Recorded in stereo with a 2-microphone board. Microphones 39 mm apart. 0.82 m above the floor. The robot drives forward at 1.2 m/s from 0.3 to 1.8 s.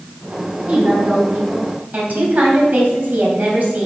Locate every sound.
0.7 s a woman speaking: 35° right (ahead or behind), 6 m; by 3.9 s 45° right (ahead or behind), 5 m